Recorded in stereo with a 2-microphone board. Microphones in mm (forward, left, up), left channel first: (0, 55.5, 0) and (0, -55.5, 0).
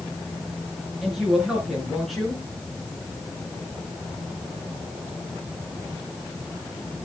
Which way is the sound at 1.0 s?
Centre (ahead or behind).